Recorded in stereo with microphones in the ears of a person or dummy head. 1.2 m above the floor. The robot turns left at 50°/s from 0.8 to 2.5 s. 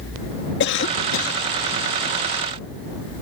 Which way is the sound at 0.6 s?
115° left.